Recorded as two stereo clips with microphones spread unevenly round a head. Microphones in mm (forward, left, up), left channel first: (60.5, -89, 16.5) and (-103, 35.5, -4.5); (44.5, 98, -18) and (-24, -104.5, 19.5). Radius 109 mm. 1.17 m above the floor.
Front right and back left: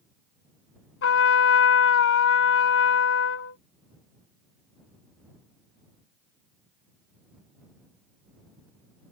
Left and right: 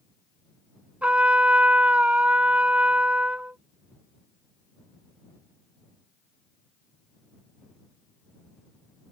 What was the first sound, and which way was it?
A trumpet, 30° right.